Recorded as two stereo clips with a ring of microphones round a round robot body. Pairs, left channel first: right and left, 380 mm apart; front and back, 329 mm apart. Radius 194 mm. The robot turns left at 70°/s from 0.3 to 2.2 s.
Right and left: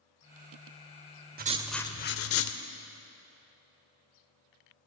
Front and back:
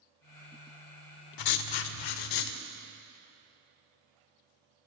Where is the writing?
25° left, 0.7 m; by 2.6 s 35° right, 0.7 m.